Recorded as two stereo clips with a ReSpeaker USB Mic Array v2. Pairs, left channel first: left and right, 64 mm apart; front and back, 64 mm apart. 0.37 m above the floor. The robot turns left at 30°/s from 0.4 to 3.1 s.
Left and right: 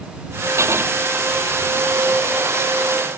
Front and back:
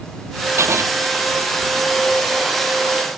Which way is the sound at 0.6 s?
135° right.